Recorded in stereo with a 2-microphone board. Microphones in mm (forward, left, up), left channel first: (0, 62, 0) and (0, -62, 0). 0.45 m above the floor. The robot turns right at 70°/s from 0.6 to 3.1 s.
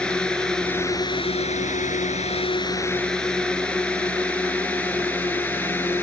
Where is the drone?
10° left (ahead or behind); by 6.0 s 15° left (ahead or behind).